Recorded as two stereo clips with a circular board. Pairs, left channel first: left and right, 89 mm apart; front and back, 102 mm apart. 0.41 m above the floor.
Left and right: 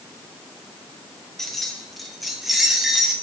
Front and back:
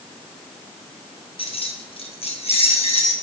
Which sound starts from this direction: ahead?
Keys jangling, at 1.4 s.